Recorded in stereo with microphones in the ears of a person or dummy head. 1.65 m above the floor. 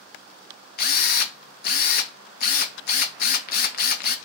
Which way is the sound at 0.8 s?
60° left (ahead or behind).